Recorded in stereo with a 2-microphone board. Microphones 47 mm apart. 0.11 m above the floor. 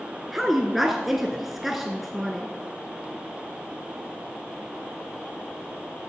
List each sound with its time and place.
0.3 s a woman speaking: 5° right (ahead or behind), 1.1 m